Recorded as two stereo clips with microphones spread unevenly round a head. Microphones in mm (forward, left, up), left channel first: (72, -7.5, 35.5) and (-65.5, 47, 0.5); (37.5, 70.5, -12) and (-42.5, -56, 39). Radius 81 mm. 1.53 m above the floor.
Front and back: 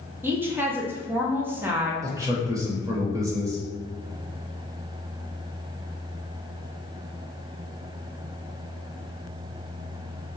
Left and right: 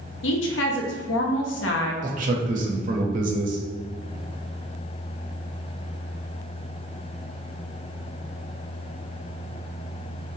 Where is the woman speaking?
70° left, 0.7 m.